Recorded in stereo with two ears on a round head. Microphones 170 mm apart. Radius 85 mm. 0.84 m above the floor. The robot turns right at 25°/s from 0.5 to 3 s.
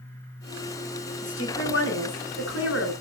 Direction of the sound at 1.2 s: 60° left.